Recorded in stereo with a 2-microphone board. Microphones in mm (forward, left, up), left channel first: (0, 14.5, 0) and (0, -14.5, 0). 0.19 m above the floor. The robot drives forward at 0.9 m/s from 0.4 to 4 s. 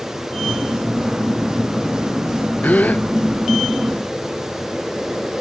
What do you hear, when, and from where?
2.6 s a gasp: 75° left (ahead or behind)